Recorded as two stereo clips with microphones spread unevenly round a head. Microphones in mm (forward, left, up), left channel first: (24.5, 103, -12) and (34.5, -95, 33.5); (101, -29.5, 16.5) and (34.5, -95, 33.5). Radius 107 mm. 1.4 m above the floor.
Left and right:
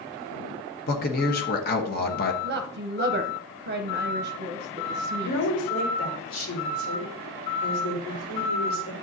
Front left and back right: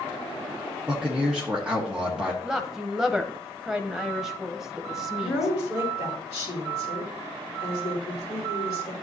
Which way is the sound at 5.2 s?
75° left.